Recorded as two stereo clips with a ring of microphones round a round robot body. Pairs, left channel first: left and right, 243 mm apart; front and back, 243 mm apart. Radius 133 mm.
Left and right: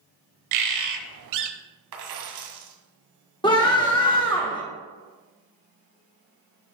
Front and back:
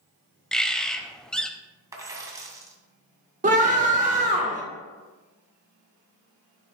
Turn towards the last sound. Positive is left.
turn(degrees=150)